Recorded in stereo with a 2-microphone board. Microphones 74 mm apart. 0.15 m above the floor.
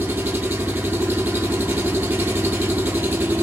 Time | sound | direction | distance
0.0 | an engine running | 25° right (ahead or behind) | 1.2 m